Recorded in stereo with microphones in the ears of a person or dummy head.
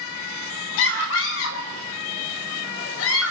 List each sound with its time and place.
0.8 s a scream: 75° left (ahead or behind), 4 m